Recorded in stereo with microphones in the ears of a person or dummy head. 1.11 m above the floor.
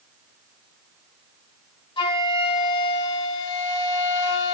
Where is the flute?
25° left (ahead or behind), 2.5 m.